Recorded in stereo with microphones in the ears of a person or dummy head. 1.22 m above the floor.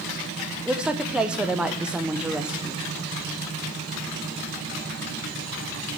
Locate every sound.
0.7 s a woman speaking: 10° right (ahead or behind), 0.7 m